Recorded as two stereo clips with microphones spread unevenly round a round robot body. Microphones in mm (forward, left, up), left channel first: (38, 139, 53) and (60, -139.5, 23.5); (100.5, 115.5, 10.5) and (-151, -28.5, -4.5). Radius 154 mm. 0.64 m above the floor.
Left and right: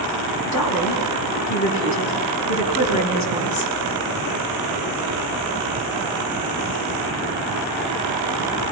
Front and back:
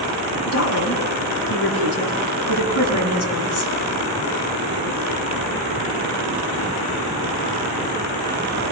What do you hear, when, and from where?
0.5 s a woman speaking: 70° left, 5 m